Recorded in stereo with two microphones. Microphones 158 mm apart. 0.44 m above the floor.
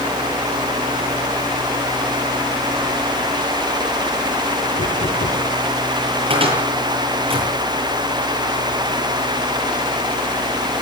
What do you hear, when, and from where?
4.8 s knocking: 75° left (ahead or behind), 4.5 m
6.3 s a cupboard door: 35° right (ahead or behind), 9.5 m